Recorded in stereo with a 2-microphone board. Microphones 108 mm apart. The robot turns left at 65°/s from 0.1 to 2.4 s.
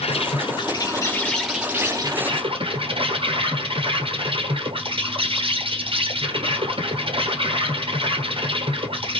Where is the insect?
90° left, 1.5 m; by 9.2 s 60° right, 1.5 m.